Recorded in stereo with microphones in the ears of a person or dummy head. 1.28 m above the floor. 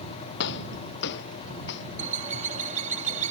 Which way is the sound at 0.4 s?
60° left (ahead or behind).